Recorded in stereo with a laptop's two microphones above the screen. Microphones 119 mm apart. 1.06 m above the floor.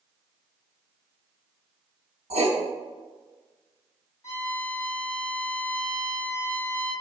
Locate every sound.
2.3 s writing: 60° right (ahead or behind), 1.0 m
4.2 s a violin: 25° left (ahead or behind), 2.5 m